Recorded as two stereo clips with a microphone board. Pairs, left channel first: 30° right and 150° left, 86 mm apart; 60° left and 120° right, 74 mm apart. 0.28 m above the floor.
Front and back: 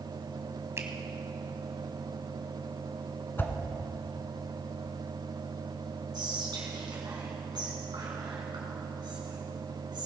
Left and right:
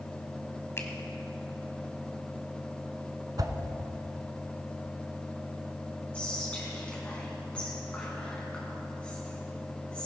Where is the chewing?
No chewing in this recording.